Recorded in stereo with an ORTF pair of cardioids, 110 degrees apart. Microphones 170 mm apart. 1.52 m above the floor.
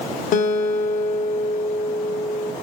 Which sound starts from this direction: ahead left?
A guitar, at 0.3 s.